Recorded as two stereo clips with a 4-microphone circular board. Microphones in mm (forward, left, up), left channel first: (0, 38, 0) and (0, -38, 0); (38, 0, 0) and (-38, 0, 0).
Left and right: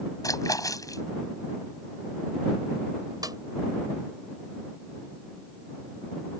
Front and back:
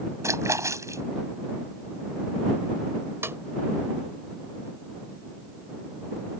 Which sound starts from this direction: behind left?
A splash, at 0.2 s.